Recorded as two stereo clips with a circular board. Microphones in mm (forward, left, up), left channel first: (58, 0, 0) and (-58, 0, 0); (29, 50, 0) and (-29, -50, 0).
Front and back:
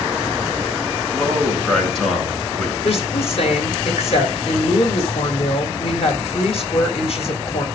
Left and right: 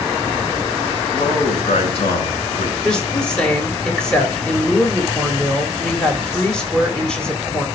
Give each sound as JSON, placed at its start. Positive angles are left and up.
{"t": 1.1, "sound": "a man speaking", "azimuth_deg": 85, "distance_m": 5.0}
{"t": 2.8, "sound": "a woman speaking", "azimuth_deg": -20, "distance_m": 3.0}